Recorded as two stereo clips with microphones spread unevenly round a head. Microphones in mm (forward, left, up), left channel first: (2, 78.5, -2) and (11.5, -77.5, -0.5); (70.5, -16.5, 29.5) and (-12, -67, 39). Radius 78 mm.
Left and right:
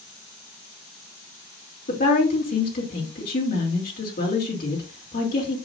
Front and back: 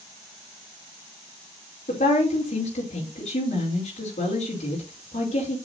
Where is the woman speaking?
60° left, 3 m.